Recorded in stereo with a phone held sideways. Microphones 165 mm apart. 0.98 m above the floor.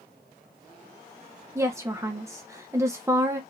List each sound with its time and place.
1.6 s a woman speaking: 15° right (ahead or behind), 0.5 m